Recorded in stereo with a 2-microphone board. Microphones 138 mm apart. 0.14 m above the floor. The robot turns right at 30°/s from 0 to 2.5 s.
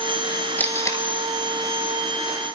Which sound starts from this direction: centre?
Tape being pulled, at 0.6 s.